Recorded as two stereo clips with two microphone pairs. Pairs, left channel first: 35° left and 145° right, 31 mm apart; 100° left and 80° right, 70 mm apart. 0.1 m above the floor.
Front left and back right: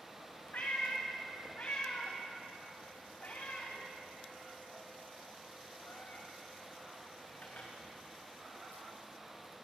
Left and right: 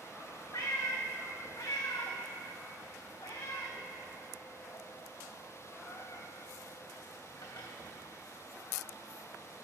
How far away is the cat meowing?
About 3 m.